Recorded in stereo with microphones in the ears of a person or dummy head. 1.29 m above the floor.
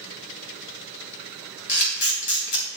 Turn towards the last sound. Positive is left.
turn(degrees=65)  # may be behind; listen again after turning